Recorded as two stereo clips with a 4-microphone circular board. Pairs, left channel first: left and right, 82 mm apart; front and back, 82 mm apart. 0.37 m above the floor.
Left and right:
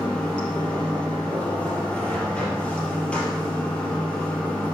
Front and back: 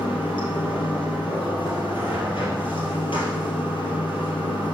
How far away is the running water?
About 2.5 m.